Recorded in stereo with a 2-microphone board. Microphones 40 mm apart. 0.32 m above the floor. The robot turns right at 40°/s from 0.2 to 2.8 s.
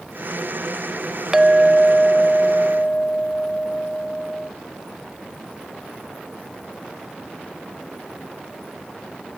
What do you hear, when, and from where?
1.3 s a clink: 20° right, 0.6 m; by 4.5 s 35° left, 0.6 m